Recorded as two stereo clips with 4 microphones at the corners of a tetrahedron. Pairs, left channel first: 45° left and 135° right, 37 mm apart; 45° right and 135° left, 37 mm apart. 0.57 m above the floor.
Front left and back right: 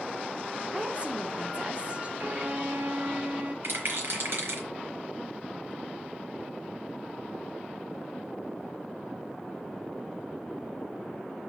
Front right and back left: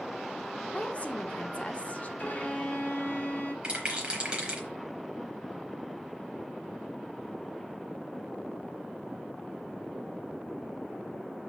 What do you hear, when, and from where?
0.7 s a woman speaking: 85° right, 1.3 m
2.2 s a violin: 90° right, 2.5 m
3.6 s a rattle: 160° right, 4 m